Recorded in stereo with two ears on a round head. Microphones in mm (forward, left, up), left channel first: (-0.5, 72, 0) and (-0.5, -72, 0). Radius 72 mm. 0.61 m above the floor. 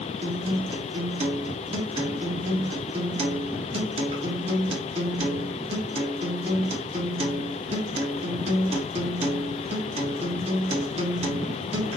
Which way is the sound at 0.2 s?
35° right (ahead or behind).